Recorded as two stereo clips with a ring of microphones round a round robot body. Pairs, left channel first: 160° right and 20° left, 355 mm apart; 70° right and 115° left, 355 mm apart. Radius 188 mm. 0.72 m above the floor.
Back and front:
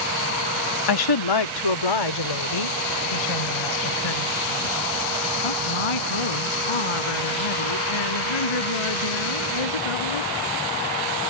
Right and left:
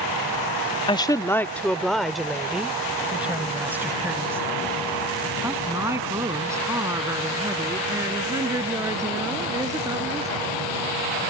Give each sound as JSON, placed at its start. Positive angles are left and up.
{"t": 0.9, "sound": "a woman speaking", "azimuth_deg": -145}